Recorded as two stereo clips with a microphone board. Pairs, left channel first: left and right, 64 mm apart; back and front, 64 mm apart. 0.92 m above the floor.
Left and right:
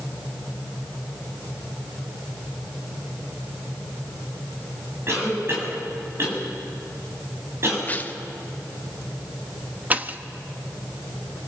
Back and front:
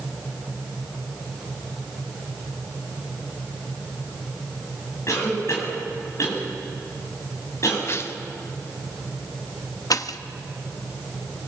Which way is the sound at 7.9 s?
145° left.